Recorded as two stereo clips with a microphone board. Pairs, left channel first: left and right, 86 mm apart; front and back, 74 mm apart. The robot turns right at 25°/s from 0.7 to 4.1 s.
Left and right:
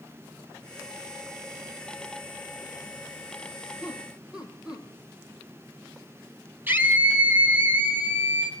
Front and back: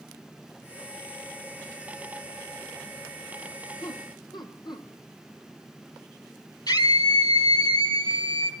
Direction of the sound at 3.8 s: 20° right.